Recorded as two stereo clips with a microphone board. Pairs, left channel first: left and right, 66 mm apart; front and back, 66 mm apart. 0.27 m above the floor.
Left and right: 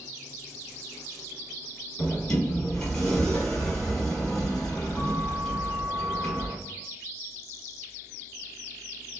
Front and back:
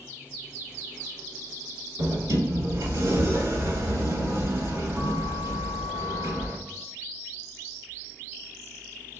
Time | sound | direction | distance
2.0 | a sliding door | 165° left | 1.3 m